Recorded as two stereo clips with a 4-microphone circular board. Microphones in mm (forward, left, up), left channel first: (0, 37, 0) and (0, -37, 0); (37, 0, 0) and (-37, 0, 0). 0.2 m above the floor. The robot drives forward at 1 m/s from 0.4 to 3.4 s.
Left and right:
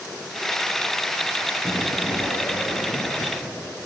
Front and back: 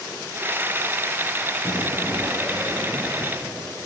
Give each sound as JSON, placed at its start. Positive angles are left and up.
{"t": 1.6, "sound": "an explosion", "azimuth_deg": 35, "distance_m": 1.4}